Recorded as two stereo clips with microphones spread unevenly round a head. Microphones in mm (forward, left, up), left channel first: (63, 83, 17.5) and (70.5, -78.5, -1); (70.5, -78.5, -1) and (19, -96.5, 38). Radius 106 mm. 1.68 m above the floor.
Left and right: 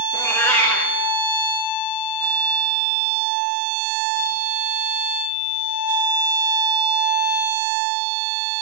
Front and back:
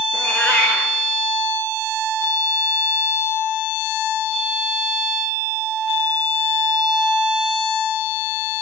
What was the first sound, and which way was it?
A cat meowing, 150° left.